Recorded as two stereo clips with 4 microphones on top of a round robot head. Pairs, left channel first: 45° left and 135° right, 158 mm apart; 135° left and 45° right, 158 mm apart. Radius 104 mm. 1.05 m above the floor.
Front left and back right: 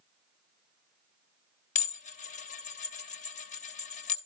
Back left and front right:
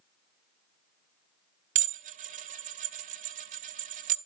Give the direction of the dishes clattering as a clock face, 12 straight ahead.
12 o'clock.